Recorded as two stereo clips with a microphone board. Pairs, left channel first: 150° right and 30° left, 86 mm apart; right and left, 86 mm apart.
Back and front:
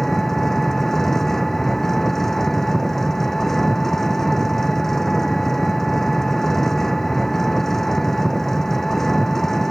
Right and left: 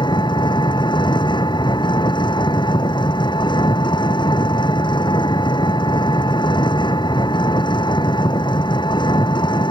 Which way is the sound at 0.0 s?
65° right.